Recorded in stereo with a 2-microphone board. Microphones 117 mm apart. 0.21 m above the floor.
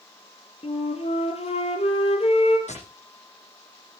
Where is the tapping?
80° left, 10 m.